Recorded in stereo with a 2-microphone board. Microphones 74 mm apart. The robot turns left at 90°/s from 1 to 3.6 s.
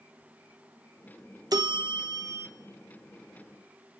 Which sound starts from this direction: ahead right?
A bell, at 1.5 s.